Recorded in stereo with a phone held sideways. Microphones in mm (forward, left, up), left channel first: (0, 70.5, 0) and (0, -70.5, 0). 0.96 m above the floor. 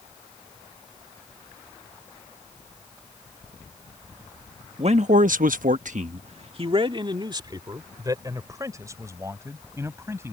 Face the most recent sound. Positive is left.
turn(degrees=-20)  # may be behind; listen again after turning